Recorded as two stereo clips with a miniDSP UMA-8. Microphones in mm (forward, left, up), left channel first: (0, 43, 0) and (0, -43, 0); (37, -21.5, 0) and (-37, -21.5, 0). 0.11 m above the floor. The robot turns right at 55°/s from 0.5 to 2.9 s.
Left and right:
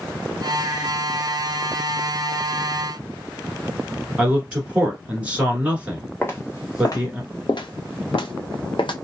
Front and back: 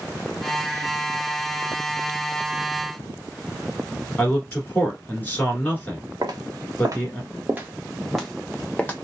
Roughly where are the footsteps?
Behind left.